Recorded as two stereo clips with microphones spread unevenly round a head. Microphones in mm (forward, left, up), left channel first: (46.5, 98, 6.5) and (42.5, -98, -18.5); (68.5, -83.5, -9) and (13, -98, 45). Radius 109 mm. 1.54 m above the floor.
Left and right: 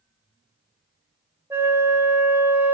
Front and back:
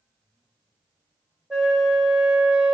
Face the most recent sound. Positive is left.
turn(degrees=-175)